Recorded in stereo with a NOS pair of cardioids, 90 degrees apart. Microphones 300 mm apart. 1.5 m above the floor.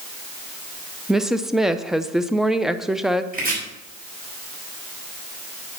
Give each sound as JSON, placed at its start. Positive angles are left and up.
{"t": 1.1, "sound": "a woman speaking", "azimuth_deg": 0, "distance_m": 0.9}
{"t": 3.3, "sound": "chopping", "azimuth_deg": -30, "distance_m": 6.5}